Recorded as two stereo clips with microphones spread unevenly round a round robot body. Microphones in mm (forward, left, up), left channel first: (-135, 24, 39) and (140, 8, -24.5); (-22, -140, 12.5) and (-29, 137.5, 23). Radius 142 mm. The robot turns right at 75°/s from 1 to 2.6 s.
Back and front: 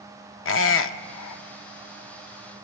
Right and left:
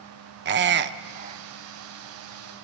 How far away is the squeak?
About 0.8 m.